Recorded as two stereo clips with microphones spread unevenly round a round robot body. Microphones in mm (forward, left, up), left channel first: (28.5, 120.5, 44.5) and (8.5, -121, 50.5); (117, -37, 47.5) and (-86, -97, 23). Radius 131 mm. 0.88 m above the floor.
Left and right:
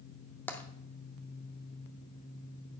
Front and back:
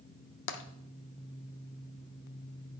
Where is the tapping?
Straight ahead, 0.6 m.